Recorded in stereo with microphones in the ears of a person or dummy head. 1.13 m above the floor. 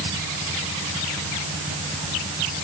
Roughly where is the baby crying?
No baby crying in this recording.